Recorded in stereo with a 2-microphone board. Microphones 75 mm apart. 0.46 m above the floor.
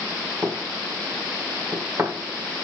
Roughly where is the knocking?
Right.